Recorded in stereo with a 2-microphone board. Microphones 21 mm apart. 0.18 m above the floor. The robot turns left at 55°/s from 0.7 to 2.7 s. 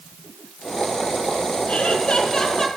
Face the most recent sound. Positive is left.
turn(degrees=15)